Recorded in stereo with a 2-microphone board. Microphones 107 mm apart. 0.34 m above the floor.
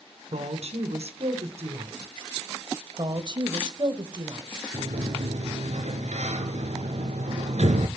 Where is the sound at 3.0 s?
45° right (ahead or behind), 1.6 m.